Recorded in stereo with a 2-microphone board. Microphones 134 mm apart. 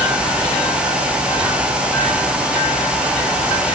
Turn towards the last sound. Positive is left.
No sound to turn to.